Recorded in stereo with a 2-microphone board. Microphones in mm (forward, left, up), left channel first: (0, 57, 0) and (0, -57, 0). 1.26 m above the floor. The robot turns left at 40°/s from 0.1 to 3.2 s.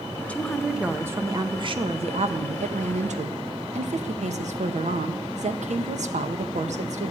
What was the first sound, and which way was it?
A woman speaking, 10° left.